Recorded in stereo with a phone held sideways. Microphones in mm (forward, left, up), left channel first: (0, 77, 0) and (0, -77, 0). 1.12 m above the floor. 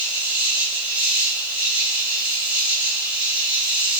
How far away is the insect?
About 1.8 m.